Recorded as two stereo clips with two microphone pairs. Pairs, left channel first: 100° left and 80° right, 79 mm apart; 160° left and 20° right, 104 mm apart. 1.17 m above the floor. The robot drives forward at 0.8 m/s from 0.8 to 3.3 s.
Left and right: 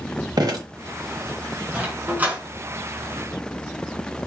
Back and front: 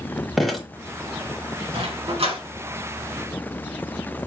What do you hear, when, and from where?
0.4 s dripping: 110° right, 1.9 m
1.7 s a dog barking: 10° right, 3.5 m